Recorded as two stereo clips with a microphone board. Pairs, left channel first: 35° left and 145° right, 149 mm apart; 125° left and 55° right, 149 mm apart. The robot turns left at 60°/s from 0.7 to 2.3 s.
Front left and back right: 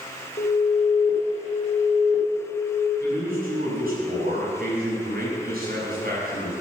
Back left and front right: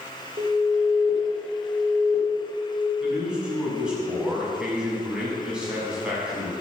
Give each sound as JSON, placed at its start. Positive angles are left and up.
{"t": 0.4, "sound": "an alarm", "azimuth_deg": -5, "distance_m": 4.0}
{"t": 3.0, "sound": "a man speaking", "azimuth_deg": -140, "distance_m": 7.0}